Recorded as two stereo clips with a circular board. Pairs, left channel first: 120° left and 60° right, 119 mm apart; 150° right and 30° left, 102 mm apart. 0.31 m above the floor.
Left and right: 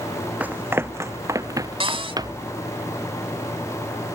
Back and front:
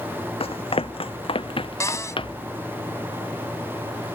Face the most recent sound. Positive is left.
turn(degrees=-95)